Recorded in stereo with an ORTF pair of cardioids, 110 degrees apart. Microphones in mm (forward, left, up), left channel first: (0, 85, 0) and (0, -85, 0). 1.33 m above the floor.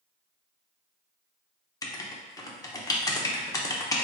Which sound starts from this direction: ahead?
Writing, at 1.8 s.